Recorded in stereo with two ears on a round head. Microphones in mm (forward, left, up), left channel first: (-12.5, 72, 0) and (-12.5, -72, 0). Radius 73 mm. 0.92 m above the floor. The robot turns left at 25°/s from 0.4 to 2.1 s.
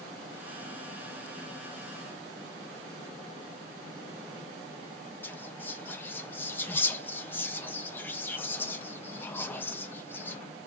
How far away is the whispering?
About 0.8 m.